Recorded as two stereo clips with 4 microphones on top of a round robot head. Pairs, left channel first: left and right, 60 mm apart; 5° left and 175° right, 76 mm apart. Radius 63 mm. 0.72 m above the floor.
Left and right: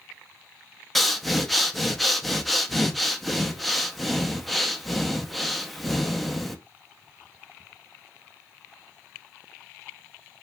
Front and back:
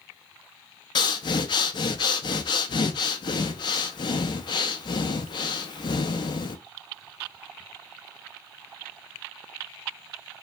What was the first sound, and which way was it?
Breathing, straight ahead.